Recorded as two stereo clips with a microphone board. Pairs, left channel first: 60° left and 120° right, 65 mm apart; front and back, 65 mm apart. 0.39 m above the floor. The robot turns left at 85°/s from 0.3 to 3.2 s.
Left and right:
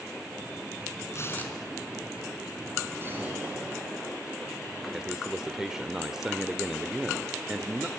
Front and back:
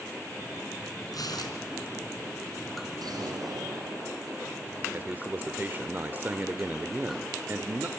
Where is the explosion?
170° right, 8 m; by 4.4 s 170° left, 8 m.